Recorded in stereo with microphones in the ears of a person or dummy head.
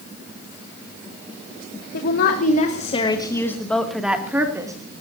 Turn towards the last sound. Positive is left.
turn(degrees=-15)  # may be behind; listen again after turning